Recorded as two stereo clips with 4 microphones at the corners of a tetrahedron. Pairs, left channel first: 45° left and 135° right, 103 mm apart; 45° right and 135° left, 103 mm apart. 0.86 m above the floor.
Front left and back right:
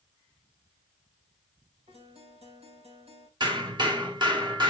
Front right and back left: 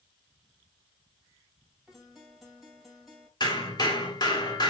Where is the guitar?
135° right, 2.5 m.